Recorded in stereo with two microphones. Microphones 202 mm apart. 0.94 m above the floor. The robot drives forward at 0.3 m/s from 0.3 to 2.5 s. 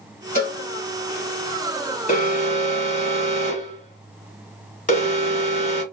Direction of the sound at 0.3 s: 45° left (ahead or behind).